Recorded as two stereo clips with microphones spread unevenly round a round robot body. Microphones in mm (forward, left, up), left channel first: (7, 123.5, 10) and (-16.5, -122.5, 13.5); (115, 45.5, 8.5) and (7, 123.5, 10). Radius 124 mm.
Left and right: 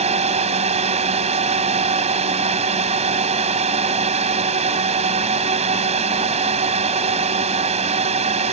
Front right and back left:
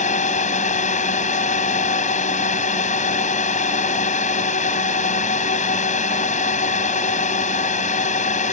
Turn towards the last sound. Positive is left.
turn(degrees=-35)